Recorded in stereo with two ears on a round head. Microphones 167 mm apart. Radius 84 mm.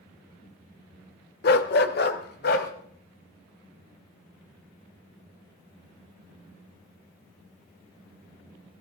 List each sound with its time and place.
1.4 s a dog barking: 55° left (ahead or behind), 1.1 m